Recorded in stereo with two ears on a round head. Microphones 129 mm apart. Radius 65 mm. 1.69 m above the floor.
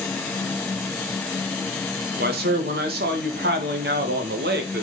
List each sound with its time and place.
2.2 s a man speaking: 70° right (ahead or behind), 2.5 m